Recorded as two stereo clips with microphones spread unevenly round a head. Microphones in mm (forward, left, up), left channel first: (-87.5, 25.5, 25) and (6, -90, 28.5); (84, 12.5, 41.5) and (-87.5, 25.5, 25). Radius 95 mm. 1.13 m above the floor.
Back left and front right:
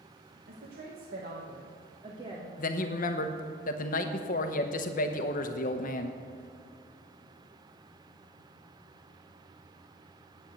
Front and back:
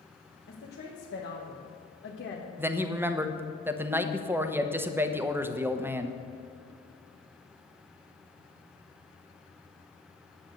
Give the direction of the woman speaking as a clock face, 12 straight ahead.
1 o'clock.